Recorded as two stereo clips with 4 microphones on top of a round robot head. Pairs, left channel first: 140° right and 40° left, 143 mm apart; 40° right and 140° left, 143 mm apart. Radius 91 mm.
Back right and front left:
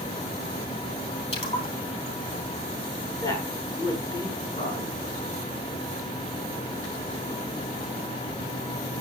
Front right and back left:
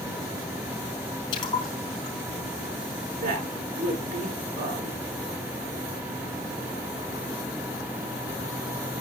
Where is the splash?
95° right, 5 m.